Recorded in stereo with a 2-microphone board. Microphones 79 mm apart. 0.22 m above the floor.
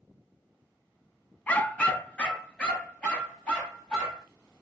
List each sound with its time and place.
1.5 s a dog barking: 20° left (ahead or behind), 0.7 m; by 4.2 s 10° left (ahead or behind), 3 m